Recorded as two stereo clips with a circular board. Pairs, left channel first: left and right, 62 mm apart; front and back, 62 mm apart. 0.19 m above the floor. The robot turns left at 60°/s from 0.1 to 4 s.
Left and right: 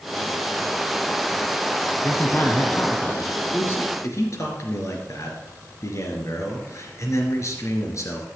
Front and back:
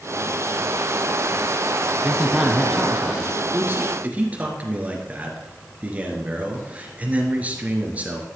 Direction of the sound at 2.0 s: 125° left.